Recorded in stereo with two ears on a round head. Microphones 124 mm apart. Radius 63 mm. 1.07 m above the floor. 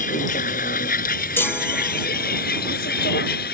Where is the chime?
15° left (ahead or behind).